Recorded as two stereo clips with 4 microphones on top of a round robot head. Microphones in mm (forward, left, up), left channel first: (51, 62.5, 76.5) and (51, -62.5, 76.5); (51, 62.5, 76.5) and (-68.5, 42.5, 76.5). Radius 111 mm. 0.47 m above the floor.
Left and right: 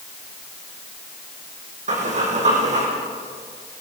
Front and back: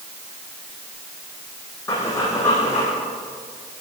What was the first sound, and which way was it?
Breathing, 65° right.